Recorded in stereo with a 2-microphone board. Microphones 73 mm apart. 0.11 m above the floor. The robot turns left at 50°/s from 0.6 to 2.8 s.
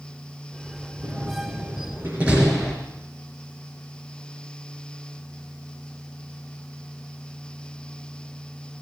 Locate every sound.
1.0 s a door slam: 75° right (ahead or behind), 5 m; by 2.8 s 5° left (ahead or behind), 5 m